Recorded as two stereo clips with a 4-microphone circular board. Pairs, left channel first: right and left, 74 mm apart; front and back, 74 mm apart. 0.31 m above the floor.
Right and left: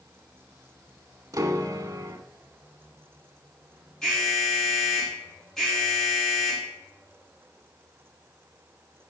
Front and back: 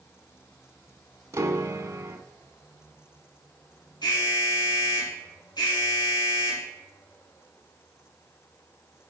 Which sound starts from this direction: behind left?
A piano, at 1.3 s.